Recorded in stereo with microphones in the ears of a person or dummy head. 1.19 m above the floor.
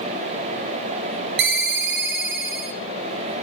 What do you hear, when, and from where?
1.4 s a ringtone: 55° right (ahead or behind), 0.5 m